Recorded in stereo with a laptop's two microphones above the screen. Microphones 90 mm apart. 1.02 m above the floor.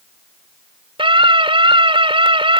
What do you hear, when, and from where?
1.0 s a scream: 80° right